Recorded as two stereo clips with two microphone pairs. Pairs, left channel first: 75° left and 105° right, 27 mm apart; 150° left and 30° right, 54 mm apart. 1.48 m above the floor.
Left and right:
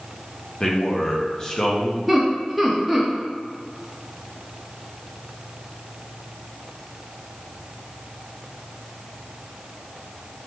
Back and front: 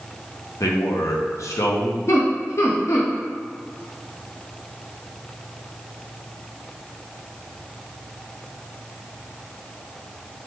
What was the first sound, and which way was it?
A man speaking, 140° left.